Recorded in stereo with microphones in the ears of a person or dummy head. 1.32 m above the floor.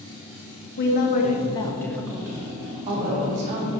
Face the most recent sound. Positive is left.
turn(degrees=-45)  # may be behind; listen again after turning